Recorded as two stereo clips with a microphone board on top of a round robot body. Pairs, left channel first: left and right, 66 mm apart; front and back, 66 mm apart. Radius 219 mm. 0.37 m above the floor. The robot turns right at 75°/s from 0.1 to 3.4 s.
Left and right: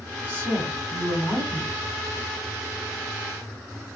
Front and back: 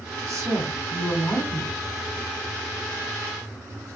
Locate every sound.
0.3 s a woman speaking: 150° right, 1.7 m; by 1.8 s 40° right, 1.7 m